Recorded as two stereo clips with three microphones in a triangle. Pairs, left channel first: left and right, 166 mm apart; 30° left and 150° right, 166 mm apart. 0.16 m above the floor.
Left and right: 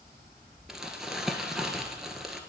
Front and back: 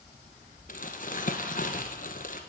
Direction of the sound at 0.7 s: Straight ahead.